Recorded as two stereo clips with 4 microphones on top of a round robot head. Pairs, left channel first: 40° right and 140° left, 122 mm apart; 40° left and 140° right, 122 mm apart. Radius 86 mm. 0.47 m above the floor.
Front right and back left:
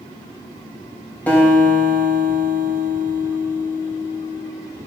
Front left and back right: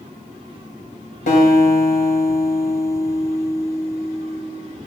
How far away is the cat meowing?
I don't hear a cat meowing.